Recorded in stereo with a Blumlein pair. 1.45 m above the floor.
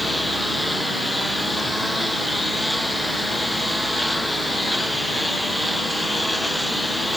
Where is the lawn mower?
5° left.